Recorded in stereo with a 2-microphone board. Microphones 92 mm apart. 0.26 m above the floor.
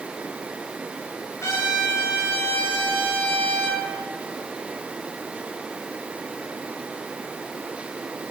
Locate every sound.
1.4 s a trumpet: 35° left (ahead or behind), 4 m